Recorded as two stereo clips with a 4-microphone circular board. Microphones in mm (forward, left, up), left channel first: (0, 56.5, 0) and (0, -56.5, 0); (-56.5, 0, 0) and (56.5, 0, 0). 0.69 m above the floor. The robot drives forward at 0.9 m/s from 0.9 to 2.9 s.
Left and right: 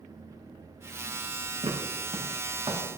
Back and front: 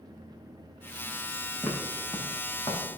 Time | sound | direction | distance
1.6 | footsteps | 95° right | 3.5 m